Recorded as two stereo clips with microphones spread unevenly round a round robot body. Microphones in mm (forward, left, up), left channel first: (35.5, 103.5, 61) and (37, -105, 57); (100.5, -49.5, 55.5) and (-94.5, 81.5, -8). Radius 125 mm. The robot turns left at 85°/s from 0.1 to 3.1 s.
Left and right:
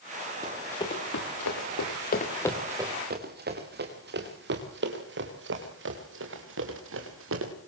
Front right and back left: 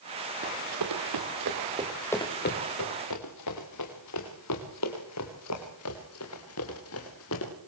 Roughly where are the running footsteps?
Behind.